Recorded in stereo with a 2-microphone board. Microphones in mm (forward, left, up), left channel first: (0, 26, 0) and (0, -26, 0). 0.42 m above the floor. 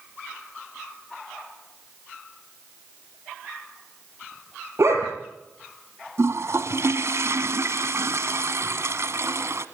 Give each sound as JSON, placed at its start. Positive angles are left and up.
{"t": 4.8, "sound": "a dog barking", "side_deg": -65, "distance_m": 4.0}
{"t": 6.2, "sound": "a toilet flushing", "side_deg": -65, "distance_m": 1.1}